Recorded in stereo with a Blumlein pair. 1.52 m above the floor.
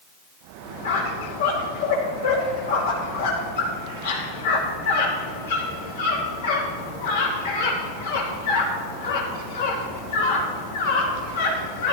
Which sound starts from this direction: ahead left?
A squeak, at 0.8 s.